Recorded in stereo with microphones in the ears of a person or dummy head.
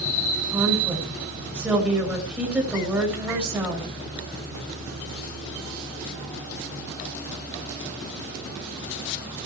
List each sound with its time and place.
0.5 s a woman speaking: 5° right (ahead or behind), 5.5 m